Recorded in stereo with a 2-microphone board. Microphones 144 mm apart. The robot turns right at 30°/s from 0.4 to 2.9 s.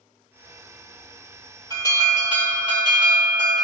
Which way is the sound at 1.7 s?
115° right.